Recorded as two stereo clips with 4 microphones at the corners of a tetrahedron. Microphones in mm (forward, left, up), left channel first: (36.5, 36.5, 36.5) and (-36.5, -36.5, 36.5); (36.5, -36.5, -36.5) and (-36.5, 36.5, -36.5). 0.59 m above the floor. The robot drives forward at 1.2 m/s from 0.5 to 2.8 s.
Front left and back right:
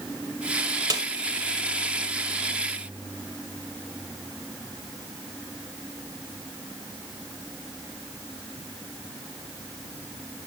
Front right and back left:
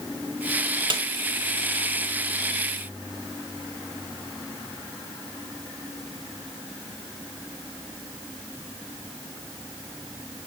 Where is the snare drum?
175° left, 1.7 m.